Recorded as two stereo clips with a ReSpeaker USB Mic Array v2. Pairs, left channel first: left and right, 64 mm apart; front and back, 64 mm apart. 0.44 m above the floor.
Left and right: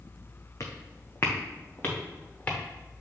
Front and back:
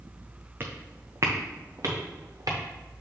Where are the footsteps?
125° left, 1.4 m; by 2.6 s 155° left, 3 m.